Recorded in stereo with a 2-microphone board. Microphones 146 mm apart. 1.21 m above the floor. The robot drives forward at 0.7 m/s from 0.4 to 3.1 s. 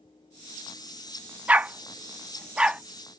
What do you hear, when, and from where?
1.5 s a dog barking: 10° right (ahead or behind); by 2.8 s 5° right (ahead or behind)